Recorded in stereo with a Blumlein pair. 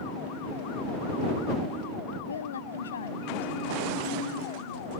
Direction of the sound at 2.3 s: 70° left.